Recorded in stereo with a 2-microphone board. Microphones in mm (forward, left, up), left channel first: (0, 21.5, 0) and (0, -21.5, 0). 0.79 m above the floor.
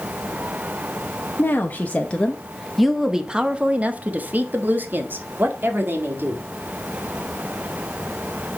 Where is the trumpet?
No trumpet in this recording.